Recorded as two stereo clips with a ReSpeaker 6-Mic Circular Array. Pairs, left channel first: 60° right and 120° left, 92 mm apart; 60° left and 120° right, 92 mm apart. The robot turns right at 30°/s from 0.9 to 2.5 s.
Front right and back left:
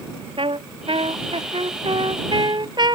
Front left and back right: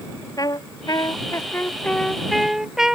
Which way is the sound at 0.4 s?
105° left.